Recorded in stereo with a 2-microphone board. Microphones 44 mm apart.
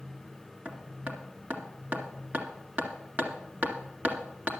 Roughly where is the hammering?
Right.